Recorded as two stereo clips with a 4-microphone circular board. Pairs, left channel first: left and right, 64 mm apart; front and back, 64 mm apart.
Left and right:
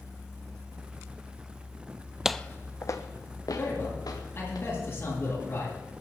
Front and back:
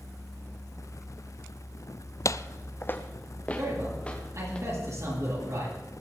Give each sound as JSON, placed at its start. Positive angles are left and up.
{"t": 2.2, "sound": "footsteps", "azimuth_deg": -10, "distance_m": 0.5}
{"t": 3.6, "sound": "a man speaking", "azimuth_deg": 145, "distance_m": 9.5}